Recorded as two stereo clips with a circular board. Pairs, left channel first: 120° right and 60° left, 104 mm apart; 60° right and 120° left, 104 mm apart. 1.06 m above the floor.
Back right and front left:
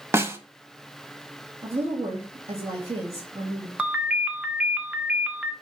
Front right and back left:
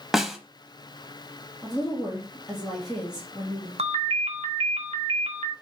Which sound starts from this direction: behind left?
A ringtone, at 3.8 s.